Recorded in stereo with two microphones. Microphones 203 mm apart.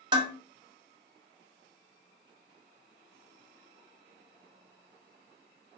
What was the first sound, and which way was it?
Dishes clattering, 20° right (ahead or behind).